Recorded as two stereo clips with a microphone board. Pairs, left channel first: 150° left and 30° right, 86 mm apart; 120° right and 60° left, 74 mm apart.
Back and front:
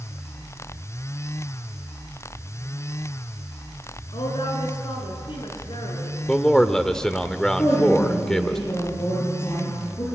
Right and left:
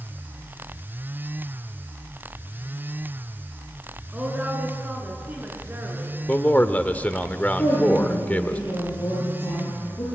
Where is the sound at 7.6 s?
160° right, 9.5 m.